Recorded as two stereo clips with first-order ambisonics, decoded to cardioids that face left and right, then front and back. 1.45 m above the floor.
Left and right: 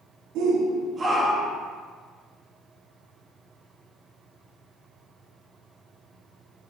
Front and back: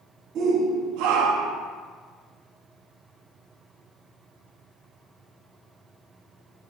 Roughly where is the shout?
Behind right.